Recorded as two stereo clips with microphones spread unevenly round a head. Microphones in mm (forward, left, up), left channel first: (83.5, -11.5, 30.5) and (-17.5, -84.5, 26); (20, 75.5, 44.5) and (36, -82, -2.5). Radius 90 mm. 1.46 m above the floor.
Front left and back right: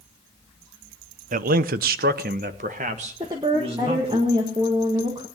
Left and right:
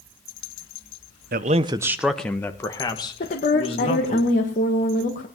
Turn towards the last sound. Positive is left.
turn(degrees=145)